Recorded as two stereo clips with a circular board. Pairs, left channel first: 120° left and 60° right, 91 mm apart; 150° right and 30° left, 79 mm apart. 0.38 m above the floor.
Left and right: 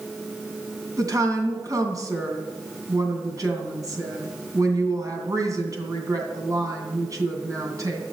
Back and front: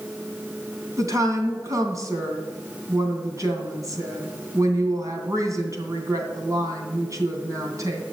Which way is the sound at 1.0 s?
10° right.